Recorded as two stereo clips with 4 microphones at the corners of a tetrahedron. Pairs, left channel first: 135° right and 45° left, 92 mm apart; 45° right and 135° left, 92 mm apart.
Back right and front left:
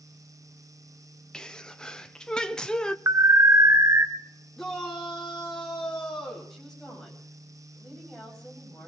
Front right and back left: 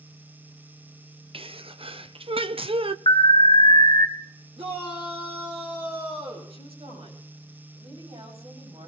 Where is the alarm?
15° right, 1.6 m.